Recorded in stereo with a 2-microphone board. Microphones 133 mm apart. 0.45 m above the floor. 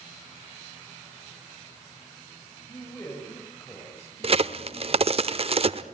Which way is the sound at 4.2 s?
45° right (ahead or behind).